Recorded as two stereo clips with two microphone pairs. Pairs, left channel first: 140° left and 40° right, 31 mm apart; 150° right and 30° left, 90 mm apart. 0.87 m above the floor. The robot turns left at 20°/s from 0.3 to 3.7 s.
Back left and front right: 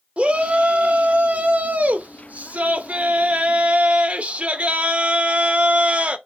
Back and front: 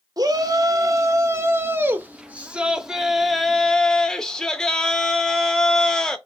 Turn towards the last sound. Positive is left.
turn(degrees=-70)